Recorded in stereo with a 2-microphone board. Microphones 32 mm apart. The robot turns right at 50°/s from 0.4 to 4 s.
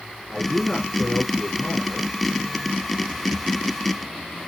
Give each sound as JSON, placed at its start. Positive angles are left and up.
{"t": 0.3, "sound": "a man speaking", "azimuth_deg": 5, "distance_m": 3.5}